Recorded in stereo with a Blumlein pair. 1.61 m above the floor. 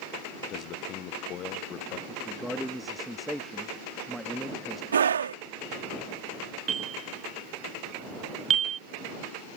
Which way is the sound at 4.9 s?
70° right.